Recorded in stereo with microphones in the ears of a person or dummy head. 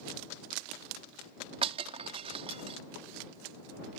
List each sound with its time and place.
1.6 s breaking glass: 30° right (ahead or behind)